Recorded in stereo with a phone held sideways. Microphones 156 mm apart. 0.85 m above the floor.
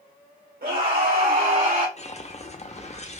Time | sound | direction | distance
0.6 | a scream | 75° right (ahead or behind) | 1.2 m
2.0 | a whoosh | 45° left (ahead or behind) | 0.6 m